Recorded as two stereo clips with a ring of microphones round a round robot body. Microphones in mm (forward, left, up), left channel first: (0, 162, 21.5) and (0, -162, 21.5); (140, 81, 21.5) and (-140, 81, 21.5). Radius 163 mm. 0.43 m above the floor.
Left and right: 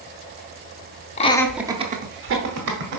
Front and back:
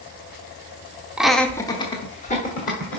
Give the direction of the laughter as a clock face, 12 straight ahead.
9 o'clock.